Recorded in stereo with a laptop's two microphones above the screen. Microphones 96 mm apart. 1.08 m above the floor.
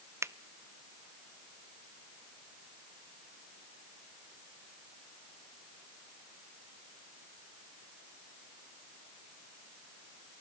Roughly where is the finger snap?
Right.